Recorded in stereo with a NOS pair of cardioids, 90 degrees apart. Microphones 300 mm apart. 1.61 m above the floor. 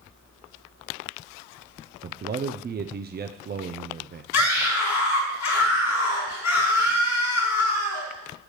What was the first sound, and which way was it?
A man speaking, 30° right.